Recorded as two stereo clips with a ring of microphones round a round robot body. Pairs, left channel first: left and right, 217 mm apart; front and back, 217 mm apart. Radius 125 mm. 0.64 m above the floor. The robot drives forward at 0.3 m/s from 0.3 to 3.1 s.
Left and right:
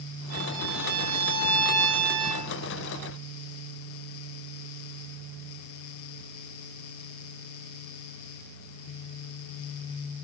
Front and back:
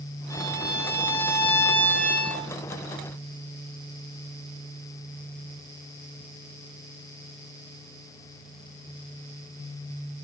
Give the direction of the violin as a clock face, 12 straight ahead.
3 o'clock.